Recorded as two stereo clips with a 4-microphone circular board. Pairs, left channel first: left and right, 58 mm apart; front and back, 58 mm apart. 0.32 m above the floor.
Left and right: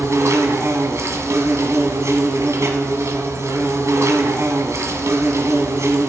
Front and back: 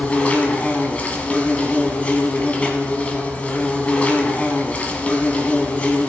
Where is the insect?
65° right, 1.4 m.